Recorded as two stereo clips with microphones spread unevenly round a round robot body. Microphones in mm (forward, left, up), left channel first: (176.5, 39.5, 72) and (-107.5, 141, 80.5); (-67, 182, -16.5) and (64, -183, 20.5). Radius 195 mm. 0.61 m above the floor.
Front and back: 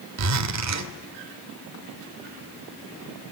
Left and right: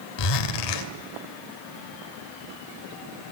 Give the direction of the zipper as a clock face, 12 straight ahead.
8 o'clock.